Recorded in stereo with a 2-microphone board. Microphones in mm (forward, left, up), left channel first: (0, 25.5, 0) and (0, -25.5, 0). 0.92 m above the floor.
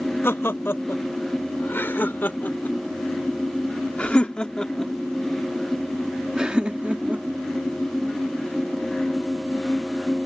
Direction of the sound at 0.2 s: 50° left (ahead or behind).